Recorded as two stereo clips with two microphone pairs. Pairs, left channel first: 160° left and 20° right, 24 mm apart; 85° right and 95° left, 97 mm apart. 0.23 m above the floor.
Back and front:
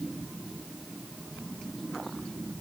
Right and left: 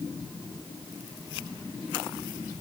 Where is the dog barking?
No dog barking in this recording.